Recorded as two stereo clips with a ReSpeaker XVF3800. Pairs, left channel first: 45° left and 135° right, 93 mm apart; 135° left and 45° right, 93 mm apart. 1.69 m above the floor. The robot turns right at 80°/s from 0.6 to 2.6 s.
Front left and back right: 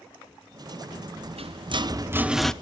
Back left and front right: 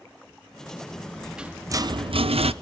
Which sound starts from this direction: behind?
A rattle, at 0.9 s.